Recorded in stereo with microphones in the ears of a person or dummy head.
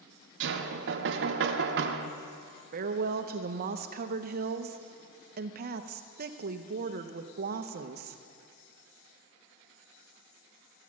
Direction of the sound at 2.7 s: 45° right (ahead or behind).